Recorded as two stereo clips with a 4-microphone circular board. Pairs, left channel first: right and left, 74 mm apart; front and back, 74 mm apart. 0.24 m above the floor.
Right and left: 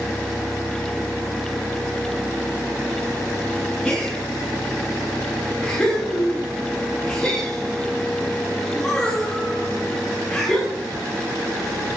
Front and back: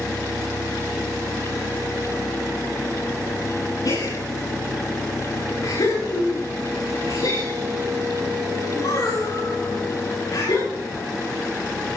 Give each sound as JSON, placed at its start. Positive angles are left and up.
{"t": 3.9, "sound": "a gasp", "azimuth_deg": -10, "distance_m": 9.0}